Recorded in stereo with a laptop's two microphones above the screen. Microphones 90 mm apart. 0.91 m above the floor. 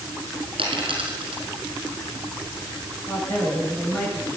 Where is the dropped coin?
75° right (ahead or behind), 5 m.